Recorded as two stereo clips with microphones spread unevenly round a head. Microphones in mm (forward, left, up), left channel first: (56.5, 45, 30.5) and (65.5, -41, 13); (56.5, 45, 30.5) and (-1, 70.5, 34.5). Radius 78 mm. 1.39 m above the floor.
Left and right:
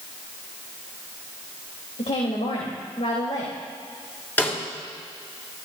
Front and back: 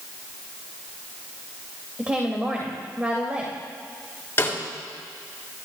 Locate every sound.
2.0 s a woman speaking: 85° left, 3 m
4.4 s a snare drum: 30° left, 6 m